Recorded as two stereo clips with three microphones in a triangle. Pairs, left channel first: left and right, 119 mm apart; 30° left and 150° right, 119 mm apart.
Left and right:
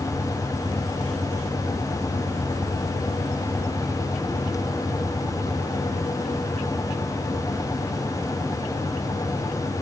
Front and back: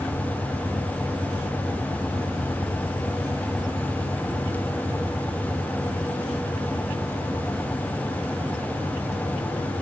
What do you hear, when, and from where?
Only background noise.